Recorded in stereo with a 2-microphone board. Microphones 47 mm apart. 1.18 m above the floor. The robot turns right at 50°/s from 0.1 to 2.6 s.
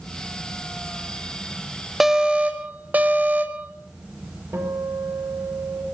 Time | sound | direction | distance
2.0 | an alarm | 170° right | 1.7 m
4.5 | a guitar | 70° right (ahead or behind) | 5.5 m